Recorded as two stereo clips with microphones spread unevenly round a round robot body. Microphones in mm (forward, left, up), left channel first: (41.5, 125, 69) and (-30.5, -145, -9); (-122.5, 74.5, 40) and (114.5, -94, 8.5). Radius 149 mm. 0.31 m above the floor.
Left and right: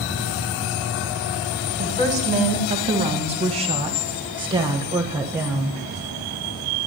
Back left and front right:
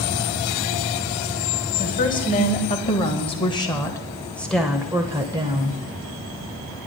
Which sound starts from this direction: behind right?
A woman speaking, at 1.8 s.